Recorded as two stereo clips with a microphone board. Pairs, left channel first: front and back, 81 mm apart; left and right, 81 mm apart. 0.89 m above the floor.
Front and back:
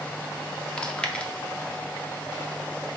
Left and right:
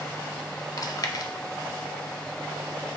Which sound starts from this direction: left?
Chewing, at 0.8 s.